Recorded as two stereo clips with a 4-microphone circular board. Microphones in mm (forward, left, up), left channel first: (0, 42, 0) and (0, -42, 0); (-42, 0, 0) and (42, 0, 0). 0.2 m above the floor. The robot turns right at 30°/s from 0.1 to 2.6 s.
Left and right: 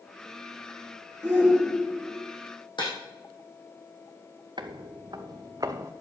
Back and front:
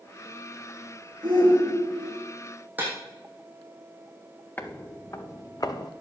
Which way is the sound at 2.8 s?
70° left.